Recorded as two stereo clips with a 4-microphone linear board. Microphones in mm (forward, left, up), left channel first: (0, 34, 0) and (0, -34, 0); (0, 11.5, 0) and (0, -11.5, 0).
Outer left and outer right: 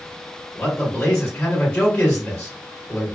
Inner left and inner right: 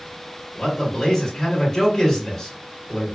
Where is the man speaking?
10° left (ahead or behind), 1.4 m.